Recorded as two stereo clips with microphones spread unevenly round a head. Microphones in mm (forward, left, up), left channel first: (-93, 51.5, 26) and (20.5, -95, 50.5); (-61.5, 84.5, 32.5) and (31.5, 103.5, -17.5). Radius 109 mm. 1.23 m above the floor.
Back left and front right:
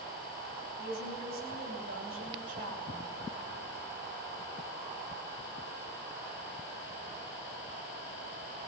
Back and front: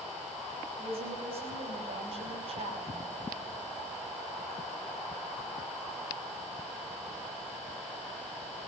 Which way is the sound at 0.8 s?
5° right.